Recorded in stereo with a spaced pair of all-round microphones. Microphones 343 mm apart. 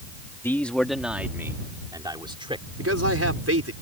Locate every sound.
0.4 s a man speaking: 5° left (ahead or behind); by 2.6 s 15° right (ahead or behind)
2.8 s a man speaking: 45° right (ahead or behind)